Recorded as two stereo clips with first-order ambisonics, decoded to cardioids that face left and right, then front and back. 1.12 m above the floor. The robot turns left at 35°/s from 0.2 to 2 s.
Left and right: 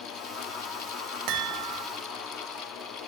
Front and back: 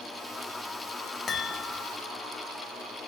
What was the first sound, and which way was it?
A chime, 75° right.